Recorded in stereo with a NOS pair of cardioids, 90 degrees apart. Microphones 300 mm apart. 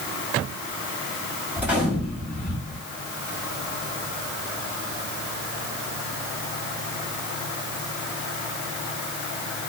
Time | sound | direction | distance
1.6 | a gunshot | 5° right | 1.6 m